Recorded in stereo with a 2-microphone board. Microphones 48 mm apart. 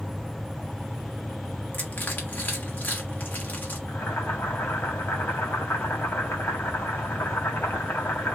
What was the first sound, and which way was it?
Crushing, 40° left (ahead or behind).